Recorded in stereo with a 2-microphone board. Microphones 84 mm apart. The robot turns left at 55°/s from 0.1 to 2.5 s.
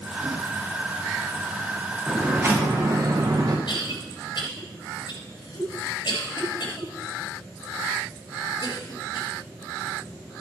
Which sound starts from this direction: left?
A cough, at 3.7 s.